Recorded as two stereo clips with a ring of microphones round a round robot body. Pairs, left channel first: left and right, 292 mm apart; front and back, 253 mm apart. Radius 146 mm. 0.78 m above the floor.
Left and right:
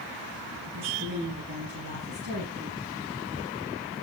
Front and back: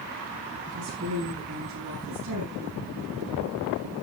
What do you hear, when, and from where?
0.7 s a woman speaking: 135° right, 7.5 m; by 2.8 s 150° right, 6 m